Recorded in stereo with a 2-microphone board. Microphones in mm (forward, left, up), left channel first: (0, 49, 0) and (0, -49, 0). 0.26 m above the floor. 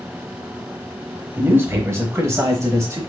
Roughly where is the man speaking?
Right.